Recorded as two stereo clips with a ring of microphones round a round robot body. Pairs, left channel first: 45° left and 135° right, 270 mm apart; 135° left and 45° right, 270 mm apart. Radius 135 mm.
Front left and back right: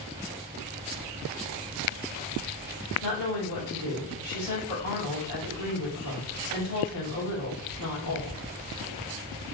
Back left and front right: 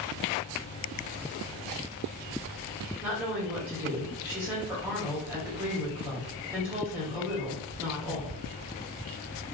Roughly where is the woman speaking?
Ahead left.